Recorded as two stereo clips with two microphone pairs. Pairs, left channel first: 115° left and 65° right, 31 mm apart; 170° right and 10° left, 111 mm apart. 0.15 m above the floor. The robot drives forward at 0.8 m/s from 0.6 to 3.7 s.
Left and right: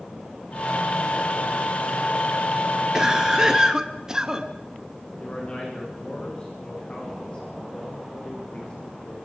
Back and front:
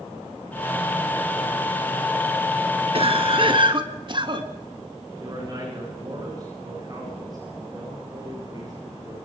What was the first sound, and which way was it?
A cough, straight ahead.